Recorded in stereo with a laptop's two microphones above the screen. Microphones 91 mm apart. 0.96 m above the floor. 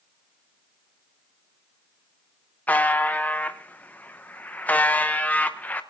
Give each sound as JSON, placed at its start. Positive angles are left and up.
{"t": 2.7, "sound": "a buzzer", "side_deg": 15, "distance_m": 0.7}